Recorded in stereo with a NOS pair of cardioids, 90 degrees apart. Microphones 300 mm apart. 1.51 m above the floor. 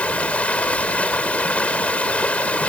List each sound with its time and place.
0.0 s running water: 5° left